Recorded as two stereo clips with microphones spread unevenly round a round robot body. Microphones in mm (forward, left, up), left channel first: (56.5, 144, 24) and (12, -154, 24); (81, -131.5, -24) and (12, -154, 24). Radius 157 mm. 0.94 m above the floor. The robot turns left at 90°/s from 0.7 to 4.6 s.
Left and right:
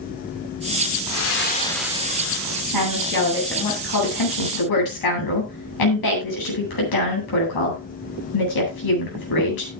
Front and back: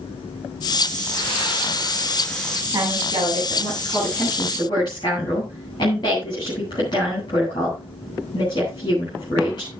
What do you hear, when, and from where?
1.1 s breathing: 60° left, 3 m; by 2.6 s 85° right, 3 m
2.7 s a woman speaking: 125° right, 9 m; by 9.7 s 70° left, 9 m